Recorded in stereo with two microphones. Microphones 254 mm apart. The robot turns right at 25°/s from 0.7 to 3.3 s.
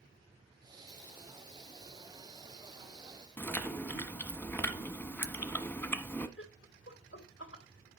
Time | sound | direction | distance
3.4 | chewing | 10° left (ahead or behind) | 1.1 m
6.4 | laughter | 50° left (ahead or behind) | 2 m